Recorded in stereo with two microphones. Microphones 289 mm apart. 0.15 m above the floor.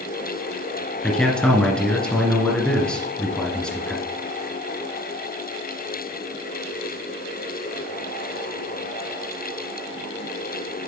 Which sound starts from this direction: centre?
A man speaking, at 1.0 s.